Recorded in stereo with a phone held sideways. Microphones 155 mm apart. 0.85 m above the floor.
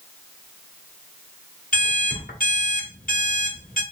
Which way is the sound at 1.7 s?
65° left (ahead or behind).